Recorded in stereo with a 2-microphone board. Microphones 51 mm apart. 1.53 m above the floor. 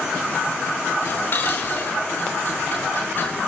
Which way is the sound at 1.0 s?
45° left (ahead or behind).